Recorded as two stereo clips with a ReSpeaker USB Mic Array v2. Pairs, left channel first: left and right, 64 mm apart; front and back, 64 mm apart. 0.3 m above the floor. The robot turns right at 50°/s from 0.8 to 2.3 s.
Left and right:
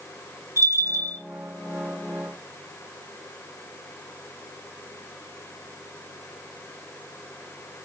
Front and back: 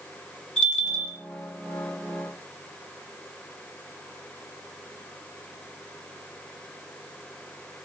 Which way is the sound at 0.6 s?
75° right.